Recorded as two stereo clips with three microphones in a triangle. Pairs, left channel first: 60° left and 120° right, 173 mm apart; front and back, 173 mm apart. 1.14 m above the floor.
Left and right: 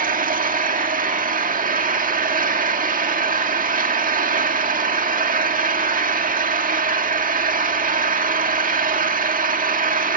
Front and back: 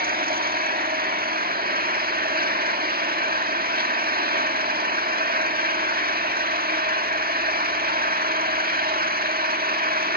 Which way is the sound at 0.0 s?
155° right.